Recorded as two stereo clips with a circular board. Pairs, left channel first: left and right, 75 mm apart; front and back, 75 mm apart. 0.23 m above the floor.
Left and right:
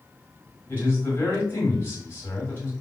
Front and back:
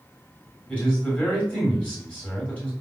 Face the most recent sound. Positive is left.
turn(degrees=55)